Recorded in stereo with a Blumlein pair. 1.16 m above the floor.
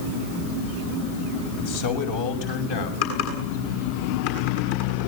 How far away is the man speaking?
About 6 m.